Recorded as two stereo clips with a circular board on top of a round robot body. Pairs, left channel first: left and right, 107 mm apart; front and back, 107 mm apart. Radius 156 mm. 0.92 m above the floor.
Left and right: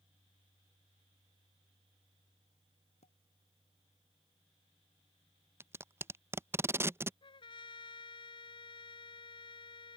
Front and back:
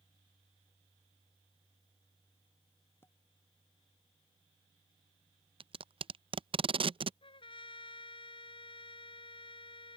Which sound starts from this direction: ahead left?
A trumpet, at 7.2 s.